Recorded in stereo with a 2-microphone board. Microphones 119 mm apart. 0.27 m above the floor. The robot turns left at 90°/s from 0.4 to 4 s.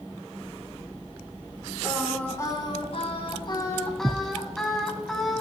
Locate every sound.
1.8 s singing: 160° right, 1.9 m; by 5.4 s 5° left, 1.9 m